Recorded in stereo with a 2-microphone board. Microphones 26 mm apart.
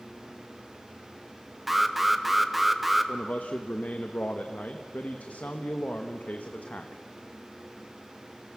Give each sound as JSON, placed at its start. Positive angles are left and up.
{"t": 1.7, "sound": "an alarm", "side_deg": -5, "distance_m": 1.2}
{"t": 3.1, "sound": "a man speaking", "side_deg": 85, "distance_m": 1.1}